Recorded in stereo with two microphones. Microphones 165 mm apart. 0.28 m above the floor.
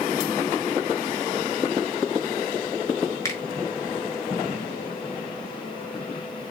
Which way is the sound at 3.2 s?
20° left (ahead or behind).